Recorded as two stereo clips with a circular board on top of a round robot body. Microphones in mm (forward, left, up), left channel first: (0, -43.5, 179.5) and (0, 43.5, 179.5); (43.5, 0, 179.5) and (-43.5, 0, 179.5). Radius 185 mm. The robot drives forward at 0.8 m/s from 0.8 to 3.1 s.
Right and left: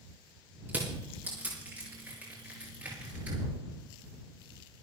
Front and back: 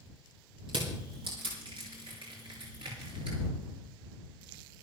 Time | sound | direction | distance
0.7 | crushing | 160° left | 5.5 m